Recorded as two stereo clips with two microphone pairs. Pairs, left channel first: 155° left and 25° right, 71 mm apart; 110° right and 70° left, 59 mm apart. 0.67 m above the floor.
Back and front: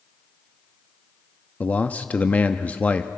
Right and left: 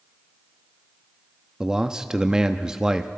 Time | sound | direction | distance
1.6 | a man speaking | 140° left | 0.6 m